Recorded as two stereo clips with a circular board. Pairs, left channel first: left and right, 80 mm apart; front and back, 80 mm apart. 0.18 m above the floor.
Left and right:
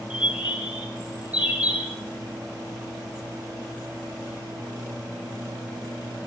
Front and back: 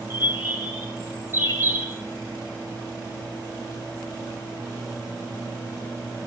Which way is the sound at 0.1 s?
20° right.